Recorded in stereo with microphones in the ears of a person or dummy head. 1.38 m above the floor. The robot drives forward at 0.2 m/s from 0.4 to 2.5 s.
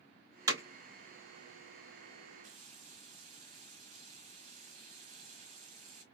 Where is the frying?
35° right (ahead or behind), 0.8 m.